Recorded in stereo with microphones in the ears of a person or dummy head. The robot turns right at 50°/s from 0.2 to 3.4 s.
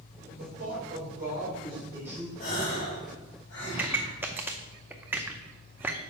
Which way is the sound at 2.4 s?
55° left.